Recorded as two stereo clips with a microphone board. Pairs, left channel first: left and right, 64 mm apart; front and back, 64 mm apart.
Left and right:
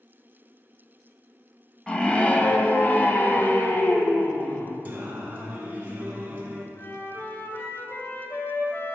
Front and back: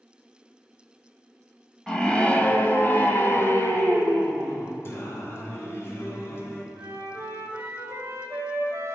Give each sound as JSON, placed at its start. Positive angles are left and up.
{"t": 1.9, "sound": "a scream", "azimuth_deg": 55, "distance_m": 1.0}
{"t": 4.8, "sound": "singing", "azimuth_deg": -30, "distance_m": 2.0}
{"t": 6.8, "sound": "a flute", "azimuth_deg": 140, "distance_m": 1.8}